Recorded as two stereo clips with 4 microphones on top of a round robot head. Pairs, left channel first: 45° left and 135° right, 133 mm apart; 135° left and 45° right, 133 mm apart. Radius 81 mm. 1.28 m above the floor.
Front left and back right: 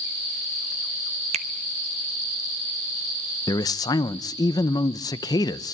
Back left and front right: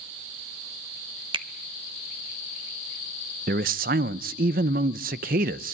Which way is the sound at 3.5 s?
20° right.